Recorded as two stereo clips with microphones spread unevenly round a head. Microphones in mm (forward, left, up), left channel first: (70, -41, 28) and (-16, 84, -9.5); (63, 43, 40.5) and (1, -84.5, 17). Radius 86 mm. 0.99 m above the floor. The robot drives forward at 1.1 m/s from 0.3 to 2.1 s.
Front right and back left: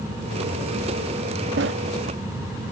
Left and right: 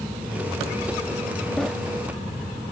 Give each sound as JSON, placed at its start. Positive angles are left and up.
{"t": 1.6, "sound": "a sliding door", "azimuth_deg": 145}